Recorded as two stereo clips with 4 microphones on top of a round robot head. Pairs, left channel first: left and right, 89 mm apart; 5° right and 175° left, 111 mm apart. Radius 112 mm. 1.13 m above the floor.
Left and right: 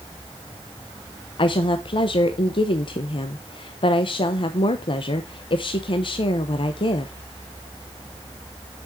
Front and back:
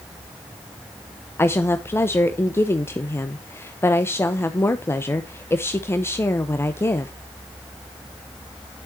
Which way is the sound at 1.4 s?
65° left.